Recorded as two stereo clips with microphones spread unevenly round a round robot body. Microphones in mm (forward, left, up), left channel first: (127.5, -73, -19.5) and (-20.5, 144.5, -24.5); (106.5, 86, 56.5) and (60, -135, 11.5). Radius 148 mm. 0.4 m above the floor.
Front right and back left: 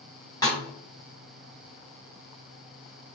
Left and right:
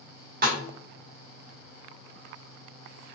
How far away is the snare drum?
About 1.6 m.